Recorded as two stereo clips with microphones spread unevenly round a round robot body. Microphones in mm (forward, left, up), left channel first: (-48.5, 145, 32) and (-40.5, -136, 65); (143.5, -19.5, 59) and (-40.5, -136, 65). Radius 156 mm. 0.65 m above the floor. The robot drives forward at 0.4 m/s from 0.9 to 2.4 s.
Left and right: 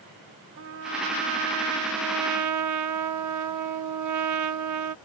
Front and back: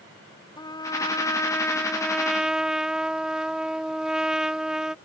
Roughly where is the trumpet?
Ahead right.